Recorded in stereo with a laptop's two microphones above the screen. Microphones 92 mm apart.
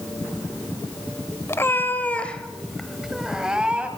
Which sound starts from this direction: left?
A cat meowing, at 1.5 s.